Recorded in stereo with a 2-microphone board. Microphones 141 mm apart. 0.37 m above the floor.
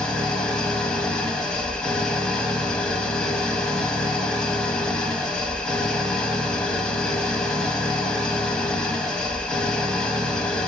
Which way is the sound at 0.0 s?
5° left (ahead or behind).